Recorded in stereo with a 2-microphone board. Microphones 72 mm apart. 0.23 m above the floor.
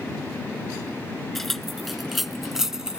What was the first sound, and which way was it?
Keys jangling, 5° left (ahead or behind).